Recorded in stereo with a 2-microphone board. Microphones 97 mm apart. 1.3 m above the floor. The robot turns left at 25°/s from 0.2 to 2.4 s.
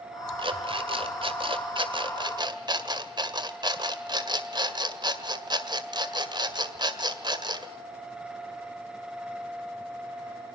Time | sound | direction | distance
0.4 | an alarm clock | 75° right | 1.9 m